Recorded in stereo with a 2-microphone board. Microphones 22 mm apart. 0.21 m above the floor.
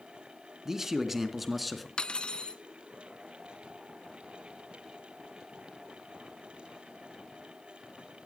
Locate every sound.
0.7 s a man speaking: 20° right (ahead or behind), 2.5 m; by 1.9 s centre (ahead or behind), 3 m
2.0 s cutlery clinking: 40° left (ahead or behind), 1.2 m